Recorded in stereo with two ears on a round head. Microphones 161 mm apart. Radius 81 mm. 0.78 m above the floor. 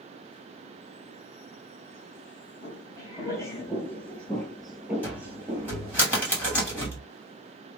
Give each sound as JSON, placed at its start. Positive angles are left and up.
{"t": 2.6, "sound": "footsteps", "side_deg": 20, "distance_m": 1.3}
{"t": 5.0, "sound": "a cupboard door", "side_deg": 10, "distance_m": 1.7}